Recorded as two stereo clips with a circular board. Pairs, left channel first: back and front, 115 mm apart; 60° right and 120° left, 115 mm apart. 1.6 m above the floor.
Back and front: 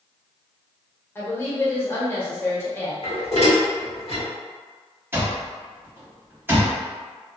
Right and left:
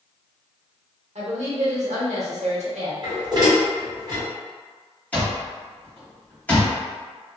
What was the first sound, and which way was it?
A woman speaking, 110° left.